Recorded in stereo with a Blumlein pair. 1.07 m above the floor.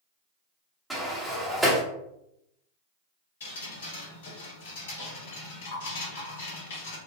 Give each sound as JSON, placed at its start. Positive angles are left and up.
{"t": 0.9, "sound": "a sliding door", "azimuth_deg": -5, "distance_m": 0.8}
{"t": 3.4, "sound": "dripping", "azimuth_deg": 60, "distance_m": 1.4}